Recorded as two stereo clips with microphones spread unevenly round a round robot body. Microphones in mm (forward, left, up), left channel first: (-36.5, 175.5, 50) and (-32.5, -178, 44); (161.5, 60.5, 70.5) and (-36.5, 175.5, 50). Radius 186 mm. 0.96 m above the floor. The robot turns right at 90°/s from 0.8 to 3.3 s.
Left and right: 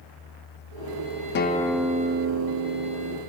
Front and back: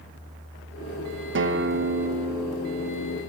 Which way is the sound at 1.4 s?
150° left.